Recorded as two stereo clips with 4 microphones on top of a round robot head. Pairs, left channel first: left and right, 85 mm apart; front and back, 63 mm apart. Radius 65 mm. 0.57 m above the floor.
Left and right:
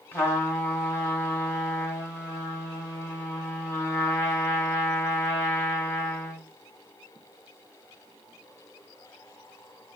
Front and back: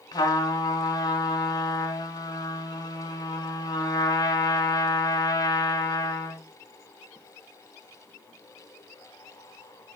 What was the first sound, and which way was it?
A trumpet, 20° left.